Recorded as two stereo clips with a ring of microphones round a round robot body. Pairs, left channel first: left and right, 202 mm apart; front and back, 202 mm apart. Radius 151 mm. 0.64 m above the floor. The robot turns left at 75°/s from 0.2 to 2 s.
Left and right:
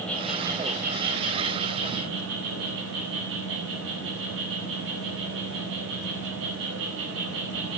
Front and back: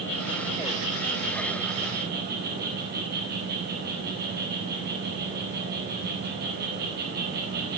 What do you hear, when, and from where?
0.0 s an insect: 5° left, 5 m; by 7.8 s 130° right, 5 m